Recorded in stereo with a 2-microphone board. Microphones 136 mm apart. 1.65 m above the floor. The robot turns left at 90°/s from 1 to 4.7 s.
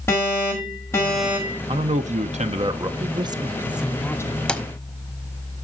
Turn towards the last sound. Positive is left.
turn(degrees=20)  # may be behind; listen again after turning